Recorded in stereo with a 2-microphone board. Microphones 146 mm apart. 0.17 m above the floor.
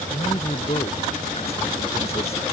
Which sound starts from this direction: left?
A man speaking, at 0.1 s.